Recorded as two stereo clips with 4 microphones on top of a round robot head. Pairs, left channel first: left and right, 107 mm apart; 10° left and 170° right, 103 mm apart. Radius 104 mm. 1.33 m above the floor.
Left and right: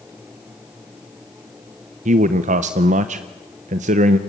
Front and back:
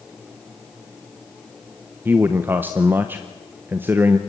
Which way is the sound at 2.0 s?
95° right.